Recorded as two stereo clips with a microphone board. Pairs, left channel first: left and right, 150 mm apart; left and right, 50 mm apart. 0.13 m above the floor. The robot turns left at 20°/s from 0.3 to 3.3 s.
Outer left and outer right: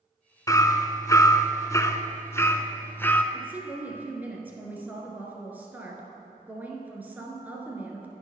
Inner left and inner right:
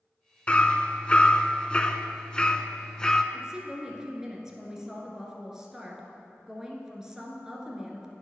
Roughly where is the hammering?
Left.